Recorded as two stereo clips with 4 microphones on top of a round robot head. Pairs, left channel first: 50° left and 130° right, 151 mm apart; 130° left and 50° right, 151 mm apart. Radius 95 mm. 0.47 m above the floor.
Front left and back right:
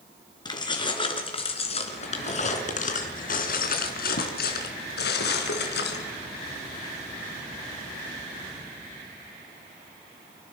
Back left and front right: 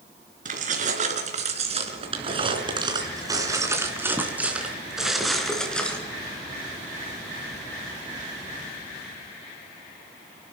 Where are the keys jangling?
15° right, 4.5 m; by 6.0 s 50° left, 4 m.